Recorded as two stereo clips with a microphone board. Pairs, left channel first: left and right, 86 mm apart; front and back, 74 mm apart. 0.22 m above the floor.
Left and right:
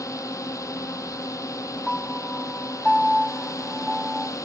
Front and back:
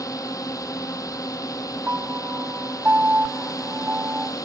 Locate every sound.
0.0 s a drone: 40° left
1.9 s a piano: 170° left